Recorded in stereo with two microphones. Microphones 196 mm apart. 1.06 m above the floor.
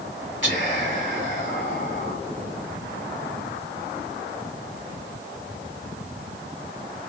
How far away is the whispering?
About 1.5 m.